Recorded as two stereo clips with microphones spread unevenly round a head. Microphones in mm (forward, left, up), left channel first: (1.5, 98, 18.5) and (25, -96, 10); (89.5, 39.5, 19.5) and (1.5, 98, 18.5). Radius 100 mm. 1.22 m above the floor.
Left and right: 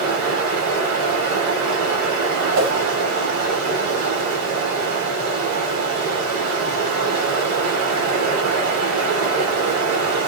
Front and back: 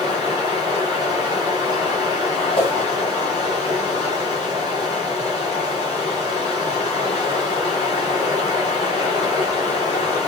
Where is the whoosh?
80° right, 1.6 m.